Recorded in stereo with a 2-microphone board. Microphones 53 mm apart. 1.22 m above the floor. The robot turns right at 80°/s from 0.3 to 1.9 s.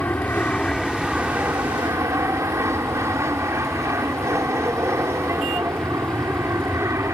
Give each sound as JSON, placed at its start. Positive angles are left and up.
{"t": 0.0, "sound": "an aircraft", "azimuth_deg": 135}